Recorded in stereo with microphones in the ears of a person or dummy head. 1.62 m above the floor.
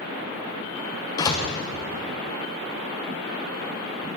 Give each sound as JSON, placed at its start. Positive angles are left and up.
{"t": 1.2, "sound": "a door slam", "side_deg": 20, "distance_m": 0.9}